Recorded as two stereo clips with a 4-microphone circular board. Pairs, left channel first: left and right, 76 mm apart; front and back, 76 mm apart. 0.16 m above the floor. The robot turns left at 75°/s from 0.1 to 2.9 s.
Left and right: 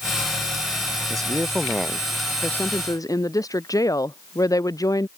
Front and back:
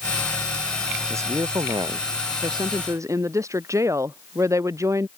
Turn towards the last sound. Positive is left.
turn(degrees=130)